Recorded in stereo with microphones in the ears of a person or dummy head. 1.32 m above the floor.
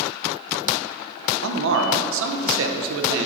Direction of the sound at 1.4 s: 80° right.